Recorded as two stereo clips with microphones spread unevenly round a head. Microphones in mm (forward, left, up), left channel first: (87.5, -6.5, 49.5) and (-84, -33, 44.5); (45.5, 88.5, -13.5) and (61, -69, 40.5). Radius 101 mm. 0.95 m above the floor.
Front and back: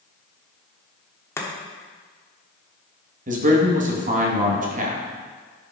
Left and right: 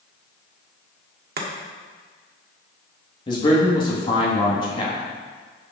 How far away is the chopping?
About 1.3 m.